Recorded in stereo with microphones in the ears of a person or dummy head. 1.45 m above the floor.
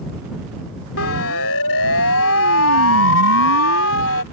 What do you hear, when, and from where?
1.0 s a siren: 85° left; by 4.2 s 90° left